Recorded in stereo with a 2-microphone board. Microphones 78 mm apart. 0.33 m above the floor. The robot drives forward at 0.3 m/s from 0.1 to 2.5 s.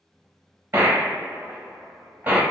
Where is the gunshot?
30° right (ahead or behind), 0.7 m; by 2.4 s 20° right (ahead or behind), 1.1 m.